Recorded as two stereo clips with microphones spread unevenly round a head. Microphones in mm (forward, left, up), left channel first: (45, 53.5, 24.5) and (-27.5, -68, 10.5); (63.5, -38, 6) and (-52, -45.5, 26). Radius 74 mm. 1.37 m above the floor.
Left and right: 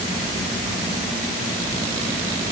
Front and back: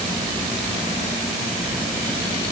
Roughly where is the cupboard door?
I don't hear a cupboard door.